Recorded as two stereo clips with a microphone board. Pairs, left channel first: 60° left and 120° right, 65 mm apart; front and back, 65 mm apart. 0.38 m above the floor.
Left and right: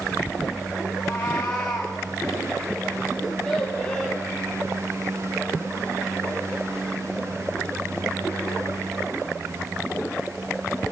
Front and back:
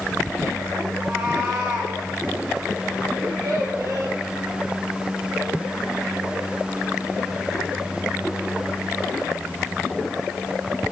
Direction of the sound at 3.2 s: 140° left.